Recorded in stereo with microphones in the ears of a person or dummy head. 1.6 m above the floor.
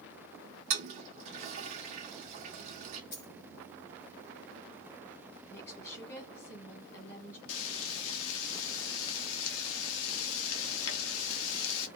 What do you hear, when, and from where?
0.7 s a toilet flushing: 45° right (ahead or behind), 0.8 m
3.1 s a dropped coin: 50° left (ahead or behind), 1.9 m
5.5 s a woman speaking: 20° left (ahead or behind), 1.5 m
7.5 s frying: 75° left (ahead or behind), 0.7 m